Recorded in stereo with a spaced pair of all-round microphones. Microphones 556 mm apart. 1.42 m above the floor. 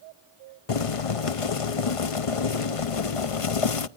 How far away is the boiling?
About 0.7 m.